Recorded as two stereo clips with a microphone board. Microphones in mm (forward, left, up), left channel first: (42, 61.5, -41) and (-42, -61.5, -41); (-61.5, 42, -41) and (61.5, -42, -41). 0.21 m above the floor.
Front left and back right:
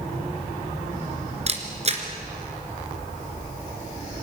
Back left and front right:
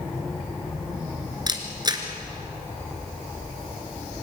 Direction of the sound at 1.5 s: 90° right.